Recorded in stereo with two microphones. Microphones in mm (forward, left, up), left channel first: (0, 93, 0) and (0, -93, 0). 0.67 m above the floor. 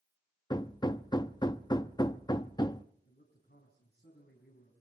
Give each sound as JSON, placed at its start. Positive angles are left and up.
{"t": 0.5, "sound": "hammering", "side_deg": 25, "distance_m": 0.5}
{"t": 3.0, "sound": "a man speaking", "side_deg": 65, "distance_m": 4.5}